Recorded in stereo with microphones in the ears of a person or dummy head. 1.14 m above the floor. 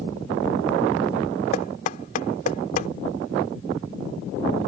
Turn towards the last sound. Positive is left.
turn(degrees=45)  # may be behind; listen again after turning